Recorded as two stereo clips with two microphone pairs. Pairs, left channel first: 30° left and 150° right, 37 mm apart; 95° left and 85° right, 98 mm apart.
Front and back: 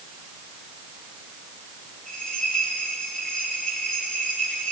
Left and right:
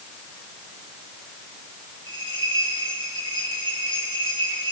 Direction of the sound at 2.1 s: 45° right.